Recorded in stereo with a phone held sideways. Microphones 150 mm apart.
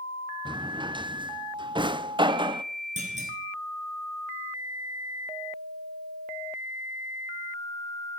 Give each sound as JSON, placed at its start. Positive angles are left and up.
{"t": 0.5, "sound": "a drawer", "side_deg": -30, "distance_m": 0.5}
{"t": 3.0, "sound": "a clunk", "side_deg": -50, "distance_m": 3.5}